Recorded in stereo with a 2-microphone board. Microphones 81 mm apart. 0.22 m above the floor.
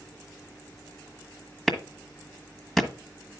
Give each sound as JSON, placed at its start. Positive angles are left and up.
{"t": 1.7, "sound": "a clap", "side_deg": 0, "distance_m": 1.3}